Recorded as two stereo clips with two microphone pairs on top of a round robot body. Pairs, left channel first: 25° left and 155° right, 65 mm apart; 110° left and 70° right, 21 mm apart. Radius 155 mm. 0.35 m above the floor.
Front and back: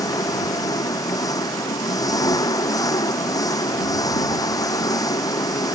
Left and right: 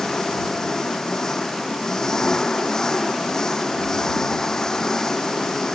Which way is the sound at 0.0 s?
45° left.